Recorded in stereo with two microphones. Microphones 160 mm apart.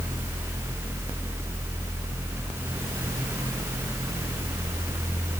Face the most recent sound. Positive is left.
No sound to turn to.